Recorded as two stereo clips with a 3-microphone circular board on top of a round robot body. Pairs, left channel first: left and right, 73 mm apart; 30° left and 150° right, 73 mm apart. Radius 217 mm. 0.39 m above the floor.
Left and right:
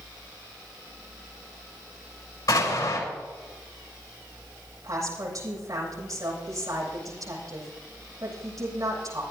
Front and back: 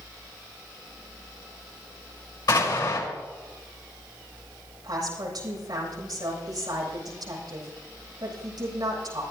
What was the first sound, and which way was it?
An explosion, 50° left.